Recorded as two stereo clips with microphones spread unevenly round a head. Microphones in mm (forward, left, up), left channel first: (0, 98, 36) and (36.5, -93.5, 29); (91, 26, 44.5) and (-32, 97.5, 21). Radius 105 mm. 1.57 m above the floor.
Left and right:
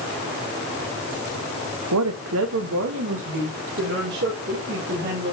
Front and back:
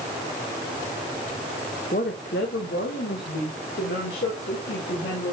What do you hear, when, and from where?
1.9 s a woman speaking: 85° right, 0.8 m; by 5.3 s 45° right, 3.5 m